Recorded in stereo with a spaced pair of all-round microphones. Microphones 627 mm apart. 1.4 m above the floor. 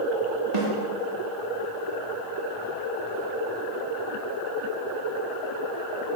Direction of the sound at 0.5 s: 80° right.